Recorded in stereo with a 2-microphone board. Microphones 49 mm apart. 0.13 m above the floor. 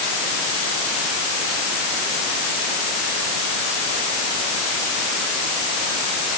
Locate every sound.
Only background noise.